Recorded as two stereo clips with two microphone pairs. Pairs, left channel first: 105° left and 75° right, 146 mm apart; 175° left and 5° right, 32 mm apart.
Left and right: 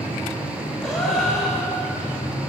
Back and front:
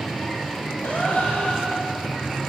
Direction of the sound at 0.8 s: 165° right.